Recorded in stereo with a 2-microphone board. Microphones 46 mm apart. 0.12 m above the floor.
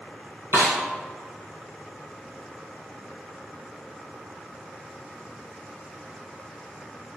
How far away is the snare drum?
About 1.0 m.